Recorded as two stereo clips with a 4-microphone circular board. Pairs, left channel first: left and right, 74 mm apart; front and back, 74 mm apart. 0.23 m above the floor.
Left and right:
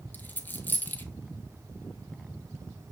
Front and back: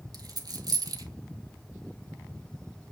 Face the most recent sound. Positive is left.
turn(degrees=155)